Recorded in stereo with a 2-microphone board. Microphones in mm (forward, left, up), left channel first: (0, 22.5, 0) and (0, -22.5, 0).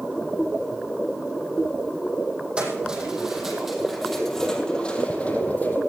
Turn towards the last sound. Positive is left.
turn(degrees=40)  # may be behind; listen again after turning